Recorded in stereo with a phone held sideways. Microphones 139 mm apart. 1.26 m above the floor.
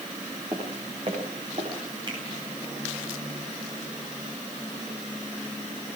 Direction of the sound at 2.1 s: 35° right (ahead or behind).